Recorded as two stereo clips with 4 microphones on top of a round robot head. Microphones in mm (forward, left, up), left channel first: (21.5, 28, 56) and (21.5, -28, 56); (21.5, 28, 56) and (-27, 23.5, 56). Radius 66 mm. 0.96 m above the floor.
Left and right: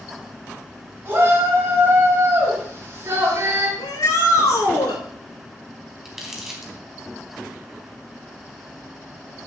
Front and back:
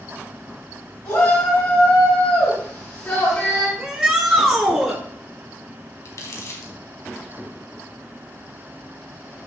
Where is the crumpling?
10° right, 3.5 m.